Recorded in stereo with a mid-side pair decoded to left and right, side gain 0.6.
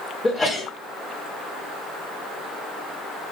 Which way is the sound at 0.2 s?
10° left.